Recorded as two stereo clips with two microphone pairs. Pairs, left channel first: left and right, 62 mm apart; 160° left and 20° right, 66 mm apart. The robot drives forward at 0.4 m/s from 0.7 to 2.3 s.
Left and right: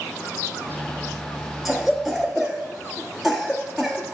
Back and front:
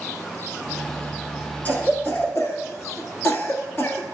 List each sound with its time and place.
1.6 s a cough: 165° right, 1.2 m; by 4.0 s 170° right, 1.4 m